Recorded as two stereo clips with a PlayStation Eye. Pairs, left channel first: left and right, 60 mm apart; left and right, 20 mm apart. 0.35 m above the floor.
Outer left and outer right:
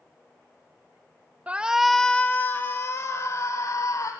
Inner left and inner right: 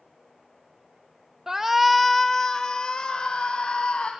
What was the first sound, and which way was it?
A shout, 25° right (ahead or behind).